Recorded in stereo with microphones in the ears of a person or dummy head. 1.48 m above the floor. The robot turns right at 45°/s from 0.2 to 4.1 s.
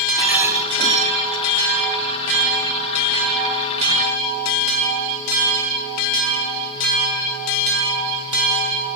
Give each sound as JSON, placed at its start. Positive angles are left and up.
{"t": 0.2, "sound": "a rattle", "azimuth_deg": -175, "distance_m": 2.5}